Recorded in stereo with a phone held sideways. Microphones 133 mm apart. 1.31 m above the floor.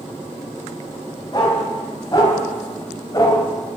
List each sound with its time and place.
1.3 s a dog barking: 30° left (ahead or behind), 3.5 m